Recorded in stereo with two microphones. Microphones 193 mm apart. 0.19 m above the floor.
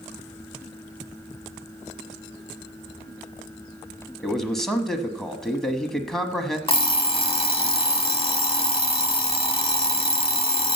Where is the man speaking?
Centre (ahead or behind), 1.1 m.